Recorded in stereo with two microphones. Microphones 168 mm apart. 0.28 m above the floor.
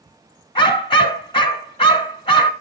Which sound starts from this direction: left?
A dog barking, at 0.6 s.